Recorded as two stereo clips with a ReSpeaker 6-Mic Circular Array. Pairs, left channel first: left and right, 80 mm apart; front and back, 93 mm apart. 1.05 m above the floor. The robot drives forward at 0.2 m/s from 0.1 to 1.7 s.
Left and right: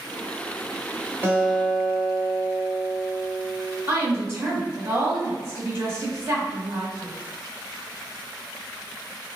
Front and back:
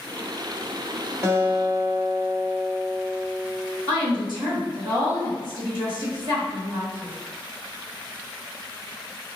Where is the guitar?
140° right, 0.9 m; by 3.8 s 145° right, 1.0 m.